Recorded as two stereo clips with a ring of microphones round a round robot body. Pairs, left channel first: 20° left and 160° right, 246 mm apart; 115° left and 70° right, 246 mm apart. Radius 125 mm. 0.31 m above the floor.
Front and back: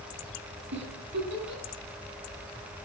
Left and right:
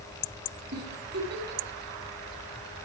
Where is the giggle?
115° right, 3 m.